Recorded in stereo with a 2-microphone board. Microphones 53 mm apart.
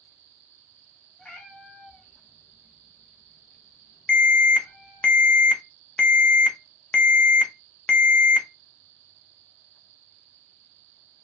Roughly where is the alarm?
Centre.